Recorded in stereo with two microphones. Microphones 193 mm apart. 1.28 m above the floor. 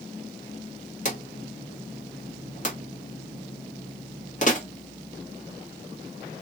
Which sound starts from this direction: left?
A drawer, at 1.1 s.